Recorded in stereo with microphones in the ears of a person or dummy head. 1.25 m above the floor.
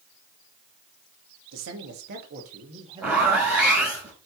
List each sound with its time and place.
1.5 s a man speaking: 80° right, 1.9 m; by 4.0 s 15° right (ahead or behind), 3 m
3.0 s a zipper: 10° right (ahead or behind), 3 m